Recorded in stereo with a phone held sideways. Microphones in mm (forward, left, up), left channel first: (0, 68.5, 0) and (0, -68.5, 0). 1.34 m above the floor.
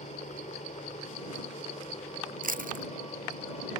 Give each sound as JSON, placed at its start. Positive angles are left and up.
{"t": 0.0, "sound": "a helicopter", "side_deg": 60}
{"t": 2.4, "sound": "chewing", "side_deg": -80}